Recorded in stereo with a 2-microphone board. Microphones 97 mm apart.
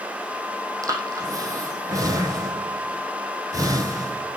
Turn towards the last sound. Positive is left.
turn(degrees=-40)  # may be behind; listen again after turning